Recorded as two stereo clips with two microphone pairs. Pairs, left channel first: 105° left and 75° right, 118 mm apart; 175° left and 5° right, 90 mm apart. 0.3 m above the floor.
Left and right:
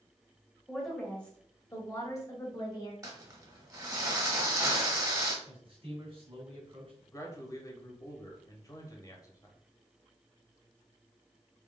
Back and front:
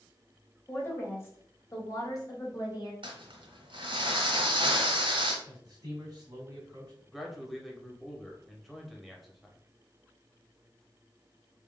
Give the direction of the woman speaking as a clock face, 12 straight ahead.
5 o'clock.